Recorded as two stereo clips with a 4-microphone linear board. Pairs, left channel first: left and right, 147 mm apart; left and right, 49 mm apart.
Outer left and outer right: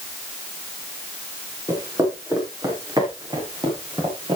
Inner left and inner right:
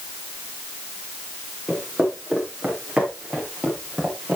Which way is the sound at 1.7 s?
20° right (ahead or behind).